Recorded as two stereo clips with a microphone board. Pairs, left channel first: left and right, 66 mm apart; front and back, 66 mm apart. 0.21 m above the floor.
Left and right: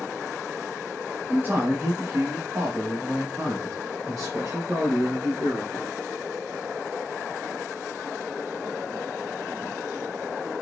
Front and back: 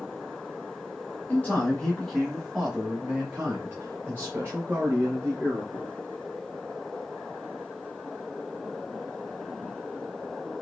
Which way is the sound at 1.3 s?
50° right.